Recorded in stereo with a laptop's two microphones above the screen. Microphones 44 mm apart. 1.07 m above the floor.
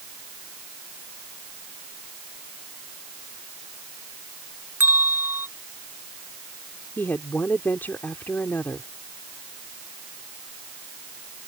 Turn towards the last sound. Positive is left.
turn(degrees=50)  # may be behind; listen again after turning